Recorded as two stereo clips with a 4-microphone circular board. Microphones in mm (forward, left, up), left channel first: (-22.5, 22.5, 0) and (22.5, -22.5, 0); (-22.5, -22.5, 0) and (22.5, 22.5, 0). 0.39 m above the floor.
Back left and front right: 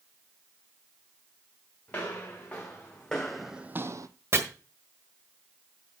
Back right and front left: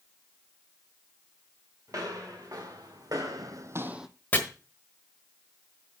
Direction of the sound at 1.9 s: 70° left.